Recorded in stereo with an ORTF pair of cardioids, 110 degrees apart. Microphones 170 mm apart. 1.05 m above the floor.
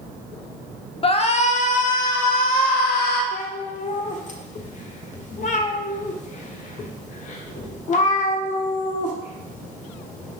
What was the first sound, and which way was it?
A shout, 35° left.